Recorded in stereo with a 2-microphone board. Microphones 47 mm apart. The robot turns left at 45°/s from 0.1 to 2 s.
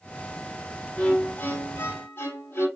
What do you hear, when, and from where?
1.0 s a violin: 160° left, 2 m; by 2.7 s 110° left, 2 m